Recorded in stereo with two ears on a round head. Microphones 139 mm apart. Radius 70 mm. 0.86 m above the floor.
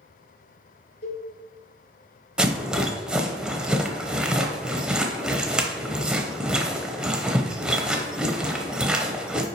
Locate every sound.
1.0 s a cowbell: 80° left, 2.5 m
2.4 s a rattle: 5° right (ahead or behind), 0.8 m